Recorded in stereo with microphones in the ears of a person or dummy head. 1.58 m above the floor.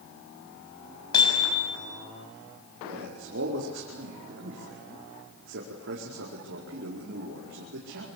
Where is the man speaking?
70° right (ahead or behind), 4.5 m.